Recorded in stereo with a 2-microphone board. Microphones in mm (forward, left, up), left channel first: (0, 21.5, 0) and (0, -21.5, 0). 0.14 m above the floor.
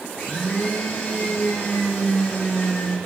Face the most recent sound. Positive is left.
turn(degrees=30)  # may be behind; listen again after turning